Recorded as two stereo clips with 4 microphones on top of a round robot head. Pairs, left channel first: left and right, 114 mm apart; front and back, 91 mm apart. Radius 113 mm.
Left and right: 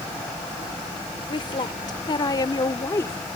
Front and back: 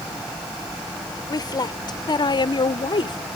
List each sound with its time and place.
1.3 s a woman speaking: 40° left; by 3.2 s 20° left